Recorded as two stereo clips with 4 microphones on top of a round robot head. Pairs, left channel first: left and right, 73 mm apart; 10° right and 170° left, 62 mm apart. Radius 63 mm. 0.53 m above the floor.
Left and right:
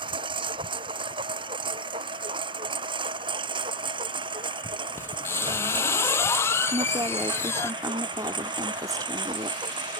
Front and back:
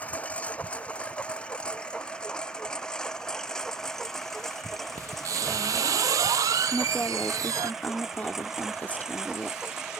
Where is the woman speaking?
70° right.